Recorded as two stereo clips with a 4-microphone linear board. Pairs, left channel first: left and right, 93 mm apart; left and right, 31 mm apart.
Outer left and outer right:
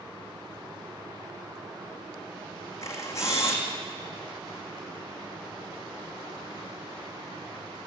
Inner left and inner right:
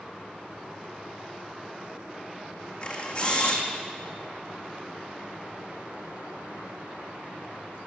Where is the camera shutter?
30° left (ahead or behind), 4 m.